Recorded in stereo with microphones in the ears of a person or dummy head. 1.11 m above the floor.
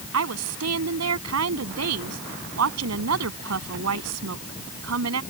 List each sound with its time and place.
0.1 s a woman speaking: 85° right